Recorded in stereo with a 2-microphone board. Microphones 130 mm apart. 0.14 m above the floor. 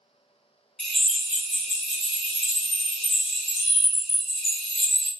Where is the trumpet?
I don't hear a trumpet.